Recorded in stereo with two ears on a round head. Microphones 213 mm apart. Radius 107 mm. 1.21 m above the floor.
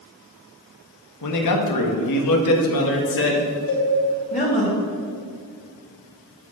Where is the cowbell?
70° left (ahead or behind), 4 m.